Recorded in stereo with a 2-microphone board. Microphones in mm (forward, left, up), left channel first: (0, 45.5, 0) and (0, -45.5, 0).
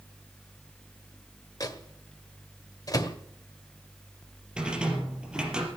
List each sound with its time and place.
1.6 s a microwave: 45° left (ahead or behind), 1.5 m
4.6 s a rattle: 10° right (ahead or behind), 4 m